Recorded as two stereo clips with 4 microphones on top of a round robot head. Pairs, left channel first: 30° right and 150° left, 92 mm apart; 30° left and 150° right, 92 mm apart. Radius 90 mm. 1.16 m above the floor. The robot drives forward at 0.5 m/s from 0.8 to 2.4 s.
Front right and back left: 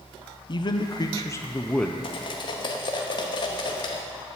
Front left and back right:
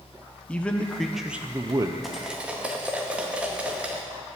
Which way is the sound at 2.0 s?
60° right.